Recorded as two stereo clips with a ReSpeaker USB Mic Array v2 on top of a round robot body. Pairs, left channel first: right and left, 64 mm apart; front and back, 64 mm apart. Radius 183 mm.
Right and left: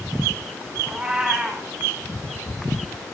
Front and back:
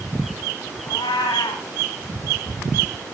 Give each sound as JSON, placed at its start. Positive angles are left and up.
{"t": 0.9, "sound": "a cat meowing", "azimuth_deg": 15, "distance_m": 0.7}